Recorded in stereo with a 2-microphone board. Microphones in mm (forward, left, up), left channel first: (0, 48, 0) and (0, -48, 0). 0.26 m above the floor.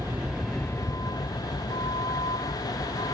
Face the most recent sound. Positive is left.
turn(degrees=85)